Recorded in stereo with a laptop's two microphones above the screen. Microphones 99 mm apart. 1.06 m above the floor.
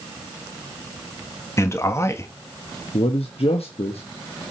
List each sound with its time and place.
1.6 s a man speaking: 30° left (ahead or behind), 1.8 m
2.9 s a man speaking: 80° left, 1.1 m